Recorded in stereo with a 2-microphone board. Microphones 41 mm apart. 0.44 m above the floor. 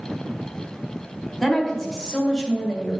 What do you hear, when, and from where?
1.4 s a woman speaking: 15° left (ahead or behind), 1.5 m; by 3.0 s 40° left (ahead or behind), 2 m